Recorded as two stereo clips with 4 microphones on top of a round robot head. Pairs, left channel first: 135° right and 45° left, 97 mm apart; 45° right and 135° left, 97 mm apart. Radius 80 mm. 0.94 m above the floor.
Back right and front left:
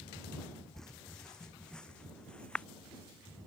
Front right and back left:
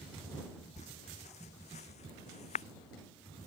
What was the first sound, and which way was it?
Footsteps, 50° right.